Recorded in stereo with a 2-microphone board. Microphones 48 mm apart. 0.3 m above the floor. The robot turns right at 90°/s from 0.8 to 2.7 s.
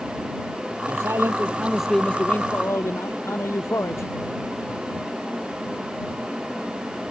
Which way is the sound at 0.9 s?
90° right.